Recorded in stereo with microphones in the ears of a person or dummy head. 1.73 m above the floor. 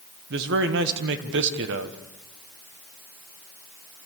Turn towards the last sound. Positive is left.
turn(degrees=-65)  # may be behind; listen again after turning